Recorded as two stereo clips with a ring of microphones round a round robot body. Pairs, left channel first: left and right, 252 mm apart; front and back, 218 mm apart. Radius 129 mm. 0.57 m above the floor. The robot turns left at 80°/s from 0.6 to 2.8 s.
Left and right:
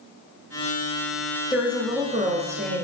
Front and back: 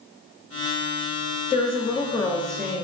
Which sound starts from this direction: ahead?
A woman speaking, at 1.5 s.